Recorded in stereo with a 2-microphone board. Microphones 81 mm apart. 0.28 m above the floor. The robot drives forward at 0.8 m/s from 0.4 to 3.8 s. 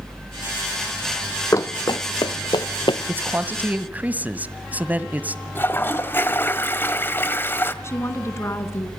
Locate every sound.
1.5 s running footsteps: 40° left (ahead or behind), 0.6 m; by 3.0 s 80° left, 1.8 m
3.1 s a man speaking: 30° right (ahead or behind), 1.2 m; by 5.4 s 20° right (ahead or behind), 1.6 m
5.5 s a toilet flushing: 30° left (ahead or behind), 1.6 m
7.8 s a woman speaking: 35° left (ahead or behind), 3 m